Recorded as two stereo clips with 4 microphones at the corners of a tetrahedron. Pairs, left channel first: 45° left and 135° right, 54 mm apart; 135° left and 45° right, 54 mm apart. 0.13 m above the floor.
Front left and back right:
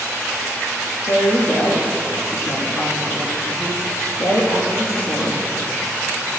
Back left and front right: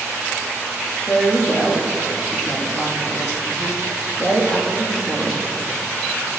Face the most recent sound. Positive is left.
turn(degrees=60)